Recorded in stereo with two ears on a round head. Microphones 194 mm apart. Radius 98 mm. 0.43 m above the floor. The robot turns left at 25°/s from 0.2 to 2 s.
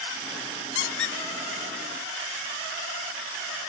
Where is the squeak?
60° left (ahead or behind), 0.6 m; by 1.2 s 55° left (ahead or behind), 0.6 m.